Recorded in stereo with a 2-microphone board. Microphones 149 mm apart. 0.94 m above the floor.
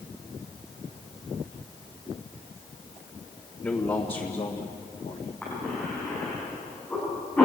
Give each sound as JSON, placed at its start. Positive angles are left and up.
{"t": 3.6, "sound": "a man speaking", "side_deg": 15, "distance_m": 1.8}
{"t": 5.4, "sound": "a cough", "side_deg": 10, "distance_m": 10.0}